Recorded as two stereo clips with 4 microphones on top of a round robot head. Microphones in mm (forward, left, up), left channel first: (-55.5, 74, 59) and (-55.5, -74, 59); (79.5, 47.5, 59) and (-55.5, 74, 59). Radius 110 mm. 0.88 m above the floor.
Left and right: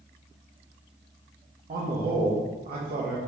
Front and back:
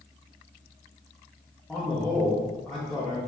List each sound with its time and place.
1.7 s a man speaking: 100° right, 1.0 m